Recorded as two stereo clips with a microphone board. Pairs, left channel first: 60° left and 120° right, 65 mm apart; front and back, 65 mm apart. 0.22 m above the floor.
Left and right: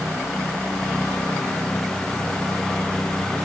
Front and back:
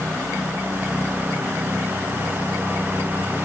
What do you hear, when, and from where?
Only background noise.